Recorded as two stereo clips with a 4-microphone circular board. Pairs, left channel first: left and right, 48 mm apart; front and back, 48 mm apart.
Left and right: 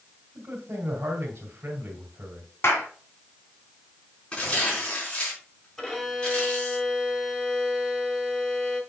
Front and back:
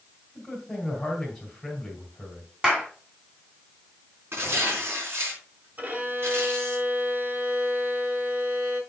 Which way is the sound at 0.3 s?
80° right.